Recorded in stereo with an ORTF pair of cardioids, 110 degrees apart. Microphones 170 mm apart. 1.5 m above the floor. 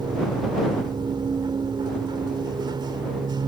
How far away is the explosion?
I don't hear an explosion.